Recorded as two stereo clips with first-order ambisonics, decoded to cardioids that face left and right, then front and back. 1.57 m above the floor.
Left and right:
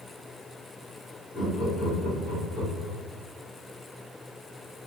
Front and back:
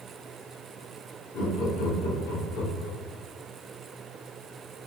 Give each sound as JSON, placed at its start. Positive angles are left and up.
{"t": 1.3, "sound": "laughter", "azimuth_deg": 5, "distance_m": 1.8}